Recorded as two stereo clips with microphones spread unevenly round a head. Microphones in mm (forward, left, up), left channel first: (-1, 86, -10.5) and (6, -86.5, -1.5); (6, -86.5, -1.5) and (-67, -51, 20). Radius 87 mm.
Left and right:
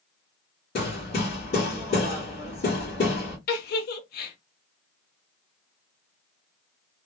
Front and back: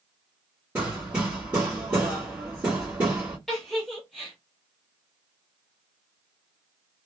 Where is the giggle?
60° left, 0.7 m.